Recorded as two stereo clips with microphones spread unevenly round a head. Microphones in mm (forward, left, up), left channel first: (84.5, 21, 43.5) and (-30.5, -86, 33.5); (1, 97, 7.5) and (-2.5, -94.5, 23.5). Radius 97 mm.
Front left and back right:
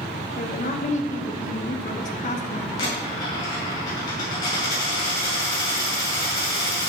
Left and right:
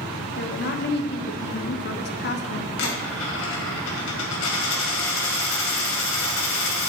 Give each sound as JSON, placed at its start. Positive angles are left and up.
{"t": 0.4, "sound": "a woman speaking", "azimuth_deg": 85, "distance_m": 1.0}
{"t": 2.8, "sound": "a dropped coin", "azimuth_deg": 110, "distance_m": 2.5}